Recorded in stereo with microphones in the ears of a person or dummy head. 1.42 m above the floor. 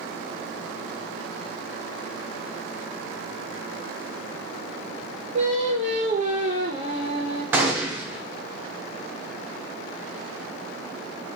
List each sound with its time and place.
5.3 s singing: 35° right (ahead or behind), 0.7 m
7.5 s a gunshot: 10° right (ahead or behind), 0.6 m